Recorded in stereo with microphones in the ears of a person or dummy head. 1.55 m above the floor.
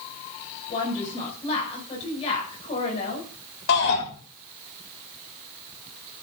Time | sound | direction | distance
0.7 | a woman speaking | 35° left (ahead or behind) | 7 m
3.7 | a shout | 65° left (ahead or behind) | 8 m